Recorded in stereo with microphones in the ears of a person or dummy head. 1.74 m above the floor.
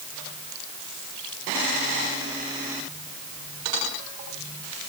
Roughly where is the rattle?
No rattle in this recording.